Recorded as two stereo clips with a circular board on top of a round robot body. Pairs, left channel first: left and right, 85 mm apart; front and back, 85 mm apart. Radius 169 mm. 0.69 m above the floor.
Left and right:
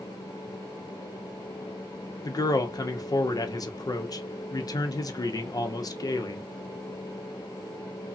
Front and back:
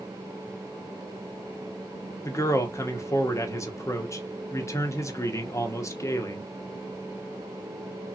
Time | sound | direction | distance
2.2 | a man speaking | 55° left | 0.8 m